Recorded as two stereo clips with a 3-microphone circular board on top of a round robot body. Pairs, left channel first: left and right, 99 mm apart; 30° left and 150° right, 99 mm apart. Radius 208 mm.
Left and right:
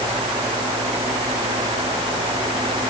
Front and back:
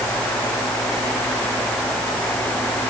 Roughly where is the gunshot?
No gunshot in this recording.